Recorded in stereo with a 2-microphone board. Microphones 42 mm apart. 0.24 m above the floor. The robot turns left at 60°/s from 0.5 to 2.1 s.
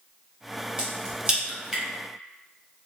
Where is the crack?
20° right (ahead or behind), 1.2 m.